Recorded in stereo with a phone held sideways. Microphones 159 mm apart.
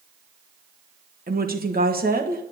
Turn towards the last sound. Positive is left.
turn(degrees=-70)  # may be behind; listen again after turning